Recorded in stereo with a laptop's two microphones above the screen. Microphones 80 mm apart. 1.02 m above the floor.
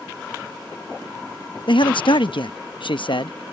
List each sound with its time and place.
1.7 s a man speaking: 75° left (ahead or behind)